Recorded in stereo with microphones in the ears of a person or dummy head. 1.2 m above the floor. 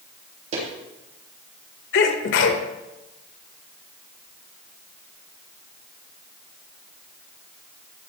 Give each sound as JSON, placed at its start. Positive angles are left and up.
{"t": 0.5, "sound": "footsteps", "side_deg": -45, "distance_m": 3.5}
{"t": 1.9, "sound": "a sneeze", "side_deg": 70, "distance_m": 1.7}